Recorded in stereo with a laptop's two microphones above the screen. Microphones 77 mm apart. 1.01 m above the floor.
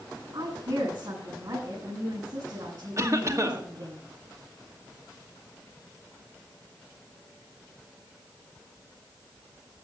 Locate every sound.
0.3 s a woman speaking: 65° right (ahead or behind), 8 m
3.0 s a cough: 40° right (ahead or behind), 1.9 m